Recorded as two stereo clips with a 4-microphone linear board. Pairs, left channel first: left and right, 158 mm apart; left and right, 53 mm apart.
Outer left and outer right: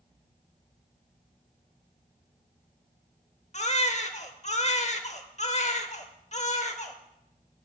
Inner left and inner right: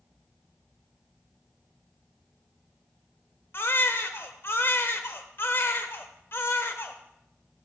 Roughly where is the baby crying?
Left.